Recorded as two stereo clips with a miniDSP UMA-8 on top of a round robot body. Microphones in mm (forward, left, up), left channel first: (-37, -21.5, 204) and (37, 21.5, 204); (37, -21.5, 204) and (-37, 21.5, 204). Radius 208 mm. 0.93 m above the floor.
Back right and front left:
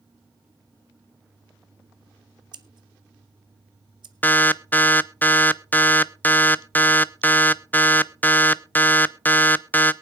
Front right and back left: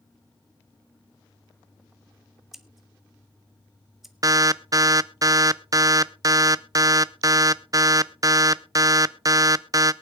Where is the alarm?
150° left, 0.7 m.